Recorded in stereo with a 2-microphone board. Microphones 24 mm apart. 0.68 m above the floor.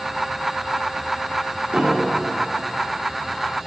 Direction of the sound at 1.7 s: 55° right (ahead or behind).